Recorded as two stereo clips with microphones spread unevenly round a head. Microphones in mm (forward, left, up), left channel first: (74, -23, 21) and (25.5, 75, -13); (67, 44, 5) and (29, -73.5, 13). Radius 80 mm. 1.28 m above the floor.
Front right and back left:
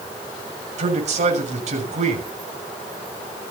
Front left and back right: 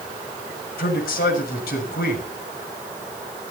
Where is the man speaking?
100° left, 7 m.